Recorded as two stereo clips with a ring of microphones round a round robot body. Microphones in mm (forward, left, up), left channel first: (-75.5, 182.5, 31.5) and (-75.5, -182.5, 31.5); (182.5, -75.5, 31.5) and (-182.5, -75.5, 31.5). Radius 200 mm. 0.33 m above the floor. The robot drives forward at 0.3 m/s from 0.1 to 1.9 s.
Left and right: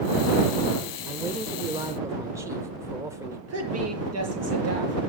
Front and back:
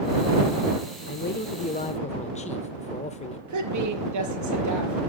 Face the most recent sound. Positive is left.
turn(degrees=-140)